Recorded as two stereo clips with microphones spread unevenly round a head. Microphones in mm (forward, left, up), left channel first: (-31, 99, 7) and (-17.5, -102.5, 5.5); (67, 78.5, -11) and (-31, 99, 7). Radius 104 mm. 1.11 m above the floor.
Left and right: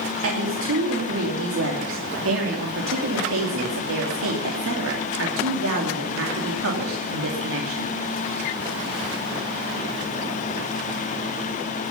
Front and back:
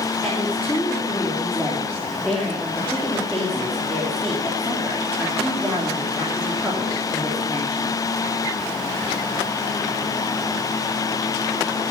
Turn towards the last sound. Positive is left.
turn(degrees=-105)